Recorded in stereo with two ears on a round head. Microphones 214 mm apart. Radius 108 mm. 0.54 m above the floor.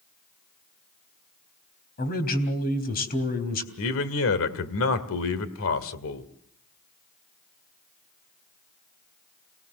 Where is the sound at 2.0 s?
40° left (ahead or behind), 3.5 m.